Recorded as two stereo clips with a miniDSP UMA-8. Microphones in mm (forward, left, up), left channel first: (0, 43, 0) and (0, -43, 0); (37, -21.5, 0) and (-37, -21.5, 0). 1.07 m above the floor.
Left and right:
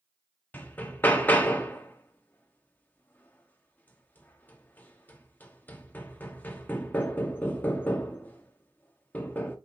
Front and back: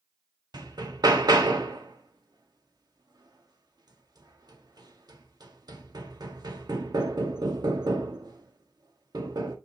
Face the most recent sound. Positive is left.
turn(degrees=160)